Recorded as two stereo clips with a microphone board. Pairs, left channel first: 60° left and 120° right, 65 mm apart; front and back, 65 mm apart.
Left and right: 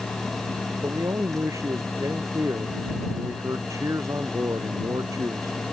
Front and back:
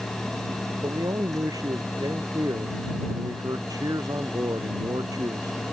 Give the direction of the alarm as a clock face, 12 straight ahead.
I don't hear an alarm.